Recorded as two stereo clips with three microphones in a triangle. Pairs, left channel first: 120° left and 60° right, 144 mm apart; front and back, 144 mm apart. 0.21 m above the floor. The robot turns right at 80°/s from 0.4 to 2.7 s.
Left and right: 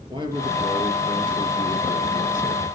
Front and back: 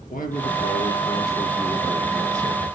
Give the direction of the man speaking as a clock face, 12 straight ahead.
12 o'clock.